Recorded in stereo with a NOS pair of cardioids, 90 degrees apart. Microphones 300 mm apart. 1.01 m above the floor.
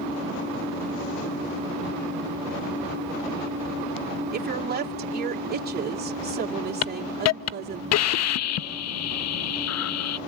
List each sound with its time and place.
4.3 s a woman speaking: 35° right, 2.5 m
6.8 s a hiss: 60° left, 0.6 m